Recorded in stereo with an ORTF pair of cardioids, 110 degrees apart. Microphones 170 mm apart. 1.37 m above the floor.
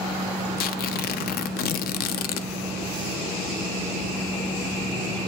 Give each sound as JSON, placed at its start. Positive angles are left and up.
{"t": 0.6, "sound": "tearing paper", "azimuth_deg": 65, "distance_m": 0.6}